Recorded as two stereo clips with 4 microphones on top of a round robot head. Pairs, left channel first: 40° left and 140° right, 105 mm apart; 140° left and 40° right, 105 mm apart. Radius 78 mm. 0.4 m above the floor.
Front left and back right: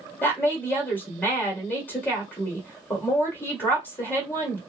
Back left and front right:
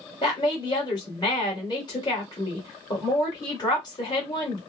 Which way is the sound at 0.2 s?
105° left.